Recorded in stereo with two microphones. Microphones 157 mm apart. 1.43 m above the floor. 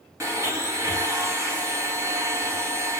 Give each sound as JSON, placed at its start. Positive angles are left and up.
{"t": 0.2, "sound": "a blender", "side_deg": -20, "distance_m": 0.8}